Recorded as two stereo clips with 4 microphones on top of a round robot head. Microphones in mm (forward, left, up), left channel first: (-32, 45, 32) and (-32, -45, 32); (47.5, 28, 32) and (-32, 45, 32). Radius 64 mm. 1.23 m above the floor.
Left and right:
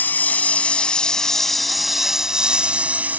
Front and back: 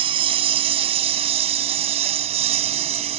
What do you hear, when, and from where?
0.0 s a lawn mower: 160° left; by 3.2 s 160° right